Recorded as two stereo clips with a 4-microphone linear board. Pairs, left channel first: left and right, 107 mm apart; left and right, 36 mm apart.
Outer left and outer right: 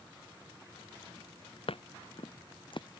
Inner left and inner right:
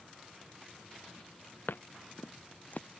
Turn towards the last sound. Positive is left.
turn(degrees=55)  # may be behind; listen again after turning